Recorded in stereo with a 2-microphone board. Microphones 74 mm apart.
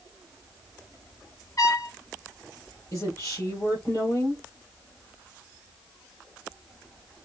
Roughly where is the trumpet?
Left.